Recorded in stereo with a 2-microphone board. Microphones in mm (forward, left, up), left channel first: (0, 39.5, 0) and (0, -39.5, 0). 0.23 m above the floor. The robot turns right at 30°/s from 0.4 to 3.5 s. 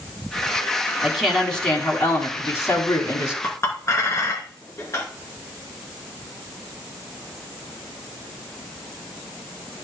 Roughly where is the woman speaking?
Ahead.